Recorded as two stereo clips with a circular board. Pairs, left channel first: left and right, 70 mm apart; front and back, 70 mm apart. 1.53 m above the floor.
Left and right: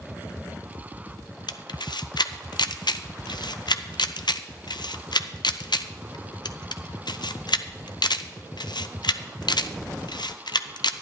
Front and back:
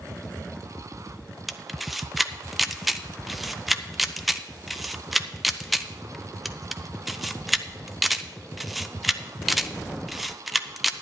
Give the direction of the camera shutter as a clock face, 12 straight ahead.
9 o'clock.